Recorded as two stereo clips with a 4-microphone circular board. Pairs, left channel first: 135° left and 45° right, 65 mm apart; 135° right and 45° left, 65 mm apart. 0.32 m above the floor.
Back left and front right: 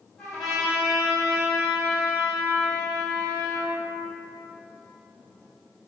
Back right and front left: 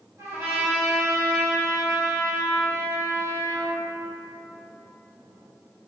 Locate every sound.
0.2 s a trumpet: 50° left, 1.9 m